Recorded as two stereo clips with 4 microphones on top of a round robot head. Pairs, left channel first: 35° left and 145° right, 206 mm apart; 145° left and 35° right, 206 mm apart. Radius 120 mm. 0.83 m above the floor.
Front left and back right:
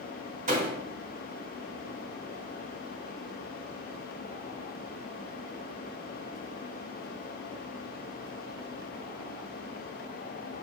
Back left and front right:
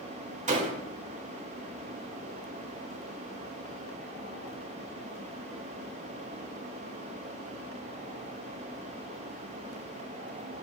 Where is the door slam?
90° right, 3 m.